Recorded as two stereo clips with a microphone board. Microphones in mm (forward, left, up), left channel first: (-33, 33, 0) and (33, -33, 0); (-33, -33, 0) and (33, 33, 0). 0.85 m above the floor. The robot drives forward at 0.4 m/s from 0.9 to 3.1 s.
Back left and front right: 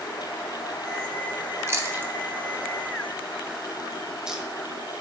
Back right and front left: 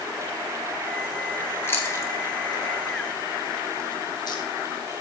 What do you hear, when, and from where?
1.7 s chewing: 85° right, 1.1 m; by 4.5 s 125° right, 1.2 m